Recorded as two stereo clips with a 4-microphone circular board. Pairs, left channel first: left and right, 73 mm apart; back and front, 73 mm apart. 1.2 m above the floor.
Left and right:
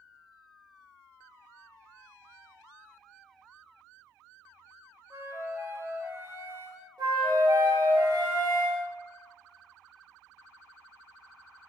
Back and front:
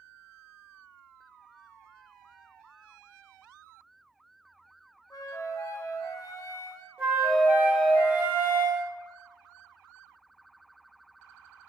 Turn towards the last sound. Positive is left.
turn(degrees=-75)